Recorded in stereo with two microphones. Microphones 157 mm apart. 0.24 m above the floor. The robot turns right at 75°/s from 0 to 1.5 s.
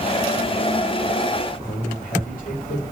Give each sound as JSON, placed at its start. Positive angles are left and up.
{"t": 1.6, "sound": "a man speaking", "side_deg": 60, "distance_m": 2.5}